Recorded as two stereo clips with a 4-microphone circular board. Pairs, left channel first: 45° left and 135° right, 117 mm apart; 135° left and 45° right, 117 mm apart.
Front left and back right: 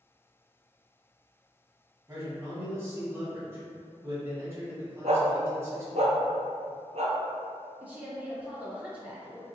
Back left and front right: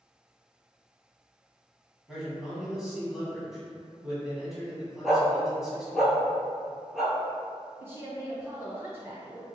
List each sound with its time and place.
2.1 s a man speaking: 125° right, 1.1 m
5.0 s a dog barking: 130° right, 0.7 m
7.8 s a woman speaking: 80° right, 1.1 m